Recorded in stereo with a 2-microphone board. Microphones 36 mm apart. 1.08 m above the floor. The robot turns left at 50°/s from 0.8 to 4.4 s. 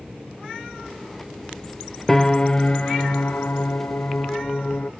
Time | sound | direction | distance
2.1 | a piano | 170° left | ?